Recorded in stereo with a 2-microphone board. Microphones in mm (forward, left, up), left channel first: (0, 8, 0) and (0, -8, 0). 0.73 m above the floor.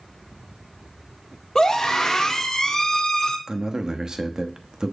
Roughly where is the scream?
Left.